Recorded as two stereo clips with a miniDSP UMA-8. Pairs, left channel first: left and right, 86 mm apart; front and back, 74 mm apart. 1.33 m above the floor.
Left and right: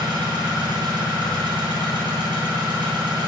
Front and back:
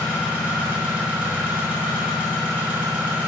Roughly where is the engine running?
Right.